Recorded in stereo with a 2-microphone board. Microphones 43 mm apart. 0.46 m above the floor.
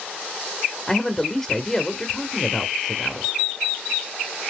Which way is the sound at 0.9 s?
15° left (ahead or behind).